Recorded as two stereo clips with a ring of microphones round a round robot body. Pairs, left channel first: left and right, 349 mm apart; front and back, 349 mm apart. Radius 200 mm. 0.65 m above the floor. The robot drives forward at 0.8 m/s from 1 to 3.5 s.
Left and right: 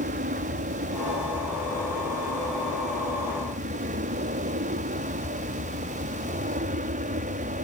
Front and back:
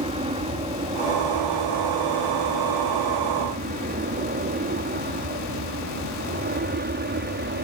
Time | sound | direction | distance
0.0 | an aircraft | 125° right | ?